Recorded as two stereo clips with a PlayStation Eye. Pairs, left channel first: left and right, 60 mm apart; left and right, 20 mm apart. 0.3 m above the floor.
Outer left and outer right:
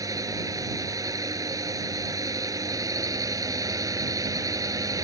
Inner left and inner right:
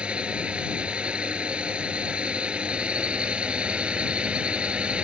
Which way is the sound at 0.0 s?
70° right (ahead or behind).